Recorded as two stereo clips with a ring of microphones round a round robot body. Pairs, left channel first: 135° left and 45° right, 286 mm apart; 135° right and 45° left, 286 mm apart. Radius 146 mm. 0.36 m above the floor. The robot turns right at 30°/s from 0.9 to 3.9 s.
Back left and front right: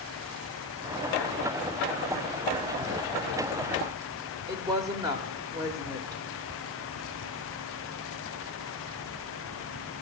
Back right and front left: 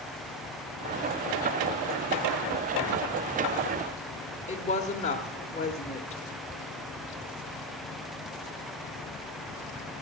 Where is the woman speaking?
105° right, 1.0 m.